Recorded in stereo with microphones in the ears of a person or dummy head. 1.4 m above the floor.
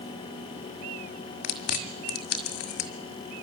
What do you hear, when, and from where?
1.4 s chewing: 55° left (ahead or behind), 1.9 m